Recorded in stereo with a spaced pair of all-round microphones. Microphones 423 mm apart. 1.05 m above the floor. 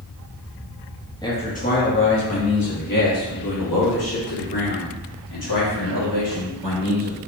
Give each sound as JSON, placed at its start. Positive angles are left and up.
{"t": 1.2, "sound": "a man speaking", "side_deg": 10, "distance_m": 1.3}